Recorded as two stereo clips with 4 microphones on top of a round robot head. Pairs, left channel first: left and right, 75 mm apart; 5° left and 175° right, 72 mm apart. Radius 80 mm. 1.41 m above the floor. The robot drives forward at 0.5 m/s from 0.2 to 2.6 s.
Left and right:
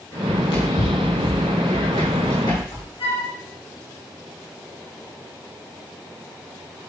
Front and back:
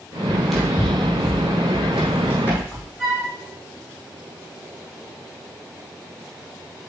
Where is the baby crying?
I don't hear a baby crying.